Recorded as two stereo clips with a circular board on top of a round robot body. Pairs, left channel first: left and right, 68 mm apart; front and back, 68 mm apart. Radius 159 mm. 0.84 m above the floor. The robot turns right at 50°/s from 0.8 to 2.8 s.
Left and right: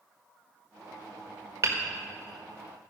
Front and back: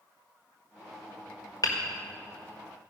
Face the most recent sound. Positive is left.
turn(degrees=20)